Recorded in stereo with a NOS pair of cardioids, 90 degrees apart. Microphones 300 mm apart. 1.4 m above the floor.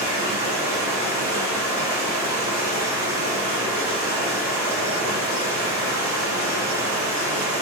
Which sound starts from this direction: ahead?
Running water, at 0.0 s.